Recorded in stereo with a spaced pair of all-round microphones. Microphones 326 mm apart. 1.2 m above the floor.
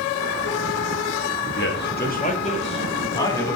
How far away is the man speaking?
About 1.8 m.